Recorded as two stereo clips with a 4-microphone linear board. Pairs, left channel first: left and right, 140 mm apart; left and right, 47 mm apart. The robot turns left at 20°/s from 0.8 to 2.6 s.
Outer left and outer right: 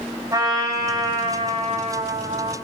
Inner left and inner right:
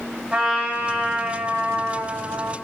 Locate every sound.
0.3 s a trumpet: 25° right, 3.5 m; by 2.5 s 60° right, 3.5 m